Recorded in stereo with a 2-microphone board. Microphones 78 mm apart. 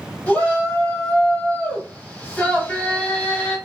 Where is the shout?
20° left (ahead or behind), 1.3 m.